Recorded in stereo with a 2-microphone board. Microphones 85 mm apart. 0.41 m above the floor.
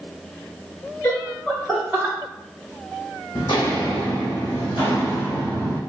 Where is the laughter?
35° left (ahead or behind), 1.0 m; by 2.1 s 15° right (ahead or behind), 1.1 m.